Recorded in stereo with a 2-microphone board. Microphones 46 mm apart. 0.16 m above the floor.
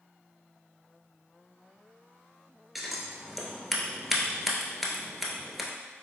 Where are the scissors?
5° right (ahead or behind), 0.7 m.